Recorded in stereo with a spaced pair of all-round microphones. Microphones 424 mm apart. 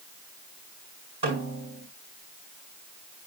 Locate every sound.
1.2 s a snare drum: 70° right (ahead or behind), 6.5 m